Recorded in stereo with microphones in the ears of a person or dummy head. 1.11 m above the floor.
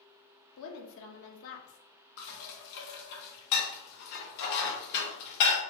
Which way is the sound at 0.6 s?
65° left (ahead or behind).